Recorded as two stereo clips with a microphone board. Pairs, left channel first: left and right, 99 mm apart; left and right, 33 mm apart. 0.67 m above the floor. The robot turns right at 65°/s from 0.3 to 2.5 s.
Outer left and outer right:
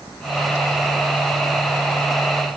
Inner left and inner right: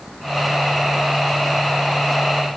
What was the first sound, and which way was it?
Only background noise.